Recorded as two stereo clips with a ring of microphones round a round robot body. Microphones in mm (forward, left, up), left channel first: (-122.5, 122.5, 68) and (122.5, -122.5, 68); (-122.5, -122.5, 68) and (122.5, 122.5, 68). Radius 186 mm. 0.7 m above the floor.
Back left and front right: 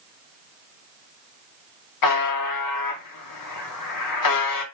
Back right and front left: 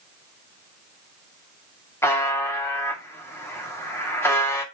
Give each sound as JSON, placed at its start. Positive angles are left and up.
{"t": 2.0, "sound": "a buzzer", "azimuth_deg": 145, "distance_m": 2.0}